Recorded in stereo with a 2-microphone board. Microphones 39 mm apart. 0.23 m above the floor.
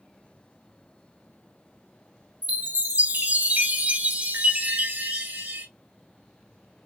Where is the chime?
50° right (ahead or behind), 1.8 m.